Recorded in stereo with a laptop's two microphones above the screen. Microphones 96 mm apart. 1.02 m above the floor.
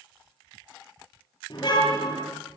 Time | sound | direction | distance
1.5 | a car horn | 50° left (ahead or behind) | 9 m